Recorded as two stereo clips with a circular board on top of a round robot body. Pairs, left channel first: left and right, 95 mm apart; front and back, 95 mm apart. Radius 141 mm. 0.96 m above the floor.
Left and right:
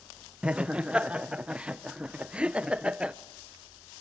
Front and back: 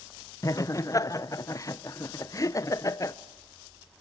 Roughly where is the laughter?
Ahead.